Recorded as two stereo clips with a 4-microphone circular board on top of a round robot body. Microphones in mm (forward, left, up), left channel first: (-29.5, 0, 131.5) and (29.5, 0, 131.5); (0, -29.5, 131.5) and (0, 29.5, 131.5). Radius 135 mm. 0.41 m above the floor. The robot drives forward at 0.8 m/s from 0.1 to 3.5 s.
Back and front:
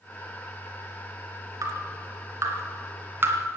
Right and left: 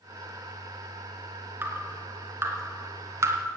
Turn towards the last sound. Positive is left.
turn(degrees=55)